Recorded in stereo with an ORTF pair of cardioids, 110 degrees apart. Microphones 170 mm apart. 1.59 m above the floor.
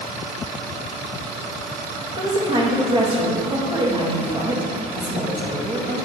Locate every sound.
2.2 s a woman speaking: 30° right, 1.9 m